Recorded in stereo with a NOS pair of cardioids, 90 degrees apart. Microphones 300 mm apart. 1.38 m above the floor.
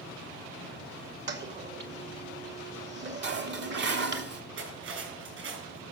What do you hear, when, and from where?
1.3 s a toilet flushing: 35° right, 2 m
3.2 s dishes clattering: 40° right, 1.9 m
4.6 s cutlery clinking: 45° right, 7 m